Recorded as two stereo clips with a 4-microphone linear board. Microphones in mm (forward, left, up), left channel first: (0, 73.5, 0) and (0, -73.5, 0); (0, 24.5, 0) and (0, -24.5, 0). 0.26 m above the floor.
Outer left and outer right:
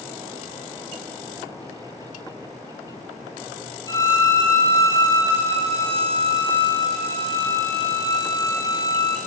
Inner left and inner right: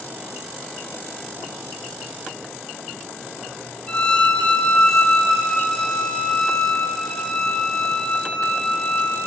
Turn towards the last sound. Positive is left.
turn(degrees=20)  # may be behind; listen again after turning